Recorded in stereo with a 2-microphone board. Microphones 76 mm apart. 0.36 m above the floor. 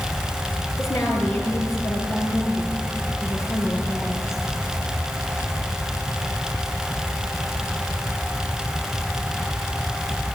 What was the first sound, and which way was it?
A woman speaking, 40° left (ahead or behind).